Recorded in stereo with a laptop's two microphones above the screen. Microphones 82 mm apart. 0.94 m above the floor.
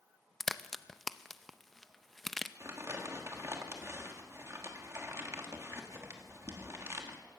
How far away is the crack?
About 0.6 m.